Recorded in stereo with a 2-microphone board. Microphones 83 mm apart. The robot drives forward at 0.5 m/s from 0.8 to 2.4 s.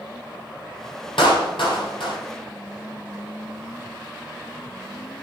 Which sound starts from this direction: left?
A clap, at 1.2 s.